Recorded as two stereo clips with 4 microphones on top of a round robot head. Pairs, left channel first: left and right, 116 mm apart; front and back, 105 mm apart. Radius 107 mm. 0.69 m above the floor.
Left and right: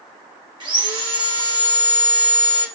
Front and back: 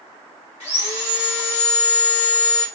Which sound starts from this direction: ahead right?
Sawing, at 0.6 s.